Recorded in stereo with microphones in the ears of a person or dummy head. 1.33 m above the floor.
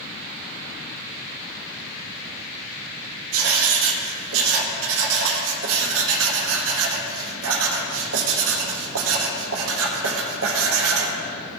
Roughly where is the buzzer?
No buzzer in this recording.